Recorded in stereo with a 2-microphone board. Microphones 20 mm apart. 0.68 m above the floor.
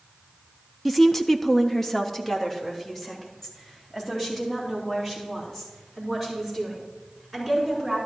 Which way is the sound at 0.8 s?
Centre (ahead or behind).